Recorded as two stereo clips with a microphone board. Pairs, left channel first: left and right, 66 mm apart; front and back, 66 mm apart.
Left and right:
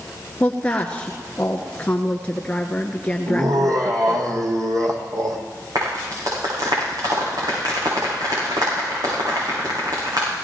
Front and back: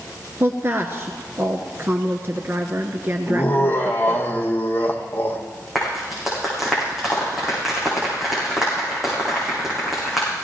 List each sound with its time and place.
0.4 s a woman speaking: 155° left, 1.3 m
3.3 s laughter: 60° right, 4 m
5.8 s a clap: 95° right, 8 m